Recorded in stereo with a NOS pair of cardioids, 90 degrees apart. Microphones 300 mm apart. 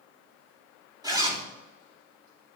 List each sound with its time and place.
1.0 s a zipper: 15° right, 3 m